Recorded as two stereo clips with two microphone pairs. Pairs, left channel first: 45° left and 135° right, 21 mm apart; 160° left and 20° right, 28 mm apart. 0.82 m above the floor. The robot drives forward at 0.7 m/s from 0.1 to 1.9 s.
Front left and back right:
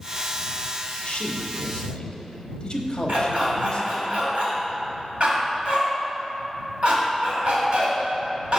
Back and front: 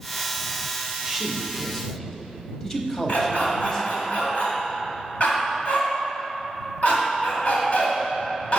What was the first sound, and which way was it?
A man speaking, 70° left.